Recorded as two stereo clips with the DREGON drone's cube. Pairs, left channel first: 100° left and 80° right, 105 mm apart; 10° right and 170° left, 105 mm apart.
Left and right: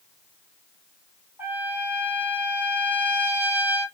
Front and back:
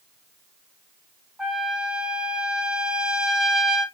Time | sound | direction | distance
1.4 | a trumpet | 120° right | 1.2 m